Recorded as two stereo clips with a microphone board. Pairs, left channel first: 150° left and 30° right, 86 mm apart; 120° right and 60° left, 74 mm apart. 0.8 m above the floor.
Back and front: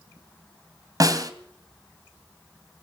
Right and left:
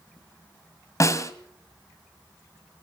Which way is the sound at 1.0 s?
75° right.